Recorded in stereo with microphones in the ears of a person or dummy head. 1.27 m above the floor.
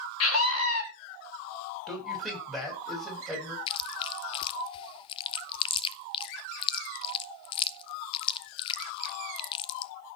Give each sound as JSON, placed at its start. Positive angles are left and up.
{"t": 0.2, "sound": "a scream", "side_deg": 80, "distance_m": 3.0}
{"t": 1.9, "sound": "a man speaking", "side_deg": 5, "distance_m": 6.5}
{"t": 3.7, "sound": "chewing", "side_deg": 30, "distance_m": 0.5}